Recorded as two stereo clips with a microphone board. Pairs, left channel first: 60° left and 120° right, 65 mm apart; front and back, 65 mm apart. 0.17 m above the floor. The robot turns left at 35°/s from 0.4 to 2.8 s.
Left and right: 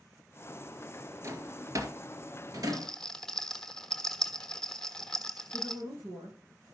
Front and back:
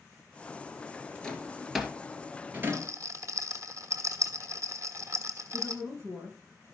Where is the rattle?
145° left, 1.1 m; by 5.8 s 140° left, 1.1 m.